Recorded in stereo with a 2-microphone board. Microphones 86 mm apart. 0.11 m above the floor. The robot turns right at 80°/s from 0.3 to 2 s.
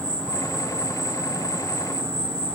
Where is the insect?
160° left, 2 m; by 2.5 s 65° right, 2 m.